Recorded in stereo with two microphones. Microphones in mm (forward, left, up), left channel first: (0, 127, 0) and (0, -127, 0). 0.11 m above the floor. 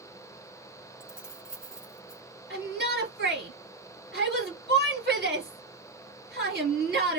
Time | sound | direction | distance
1.0 | keys jangling | 5° right (ahead or behind) | 1.3 m
2.5 | a shout | 40° right (ahead or behind) | 2.5 m